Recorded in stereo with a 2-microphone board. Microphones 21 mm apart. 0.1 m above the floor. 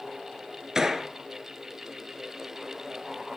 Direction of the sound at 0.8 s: 25° right (ahead or behind).